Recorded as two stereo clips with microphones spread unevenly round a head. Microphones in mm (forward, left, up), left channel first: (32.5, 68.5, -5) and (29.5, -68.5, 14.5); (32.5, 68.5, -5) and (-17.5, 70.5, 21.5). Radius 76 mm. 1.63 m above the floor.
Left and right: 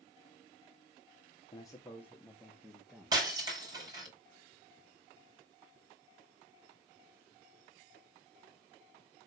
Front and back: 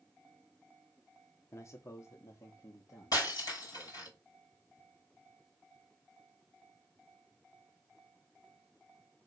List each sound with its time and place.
1.5 s a man speaking: 30° left, 1.4 m; by 4.1 s 15° right, 3 m
3.1 s breaking glass: 30° right, 5.5 m